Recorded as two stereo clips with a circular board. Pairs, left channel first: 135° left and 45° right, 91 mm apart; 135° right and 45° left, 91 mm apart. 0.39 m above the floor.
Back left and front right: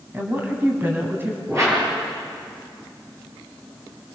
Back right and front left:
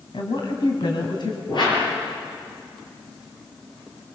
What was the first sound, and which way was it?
A woman speaking, 110° right.